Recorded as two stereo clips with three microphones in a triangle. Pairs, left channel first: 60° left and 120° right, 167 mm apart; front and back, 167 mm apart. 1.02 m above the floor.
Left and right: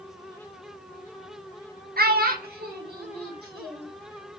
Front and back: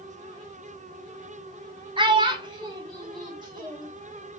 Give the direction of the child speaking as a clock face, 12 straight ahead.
4 o'clock.